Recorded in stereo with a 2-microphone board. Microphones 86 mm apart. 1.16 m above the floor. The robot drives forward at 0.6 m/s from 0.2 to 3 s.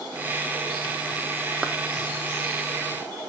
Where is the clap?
10° right (ahead or behind), 0.6 m.